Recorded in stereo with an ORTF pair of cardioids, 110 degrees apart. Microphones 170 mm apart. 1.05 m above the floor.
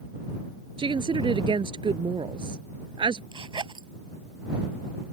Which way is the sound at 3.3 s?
30° right.